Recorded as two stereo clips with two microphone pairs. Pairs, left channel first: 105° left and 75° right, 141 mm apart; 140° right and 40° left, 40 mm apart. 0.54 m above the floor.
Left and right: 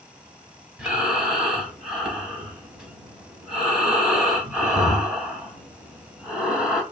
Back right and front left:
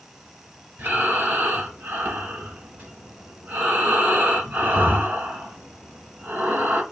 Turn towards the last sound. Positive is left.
turn(degrees=15)